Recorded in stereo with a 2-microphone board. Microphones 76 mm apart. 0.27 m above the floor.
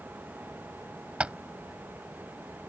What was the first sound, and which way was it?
Tapping, 15° right (ahead or behind).